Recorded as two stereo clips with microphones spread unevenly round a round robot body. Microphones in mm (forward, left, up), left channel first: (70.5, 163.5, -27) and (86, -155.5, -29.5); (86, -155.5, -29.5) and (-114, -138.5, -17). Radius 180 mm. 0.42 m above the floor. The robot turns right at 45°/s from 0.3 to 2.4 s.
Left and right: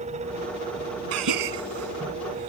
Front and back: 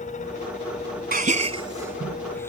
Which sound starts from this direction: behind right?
A gasp, at 1.1 s.